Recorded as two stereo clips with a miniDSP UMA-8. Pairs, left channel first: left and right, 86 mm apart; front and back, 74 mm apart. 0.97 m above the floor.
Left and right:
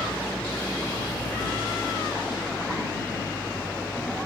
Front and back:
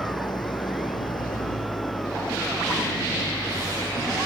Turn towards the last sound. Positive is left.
turn(degrees=15)